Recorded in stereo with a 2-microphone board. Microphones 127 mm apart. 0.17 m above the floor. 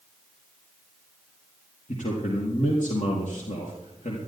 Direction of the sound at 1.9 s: 75° left (ahead or behind).